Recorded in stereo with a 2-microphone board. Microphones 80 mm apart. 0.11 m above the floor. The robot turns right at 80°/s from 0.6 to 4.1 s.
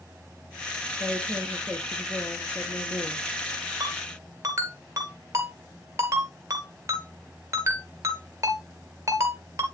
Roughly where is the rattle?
I don't hear a rattle.